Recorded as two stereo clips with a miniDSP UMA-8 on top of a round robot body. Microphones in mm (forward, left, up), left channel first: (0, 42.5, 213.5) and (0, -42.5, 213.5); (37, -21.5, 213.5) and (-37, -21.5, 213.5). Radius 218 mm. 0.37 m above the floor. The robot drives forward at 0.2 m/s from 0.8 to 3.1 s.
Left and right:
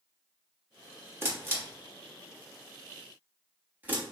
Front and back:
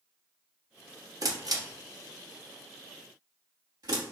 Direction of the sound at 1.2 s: 150° right.